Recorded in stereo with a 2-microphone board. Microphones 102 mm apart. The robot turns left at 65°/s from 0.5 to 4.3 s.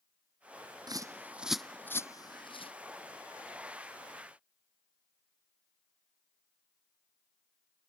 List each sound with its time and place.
0.9 s a bird: 45° right (ahead or behind); by 2.7 s 70° left (ahead or behind)